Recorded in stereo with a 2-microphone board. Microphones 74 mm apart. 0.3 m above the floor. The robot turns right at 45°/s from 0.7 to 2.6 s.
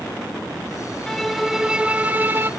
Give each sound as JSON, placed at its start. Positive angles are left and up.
{"t": 1.1, "sound": "a violin", "azimuth_deg": 170, "distance_m": 0.7}